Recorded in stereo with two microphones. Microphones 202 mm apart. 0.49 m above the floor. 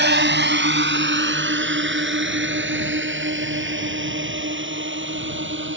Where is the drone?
60° right (ahead or behind); by 5.8 s 70° right (ahead or behind).